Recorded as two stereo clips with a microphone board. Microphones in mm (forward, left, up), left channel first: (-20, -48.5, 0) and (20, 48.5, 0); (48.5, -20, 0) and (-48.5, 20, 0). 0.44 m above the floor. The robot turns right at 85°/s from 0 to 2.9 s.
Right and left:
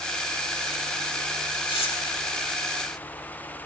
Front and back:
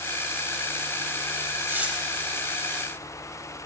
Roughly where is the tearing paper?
Behind right.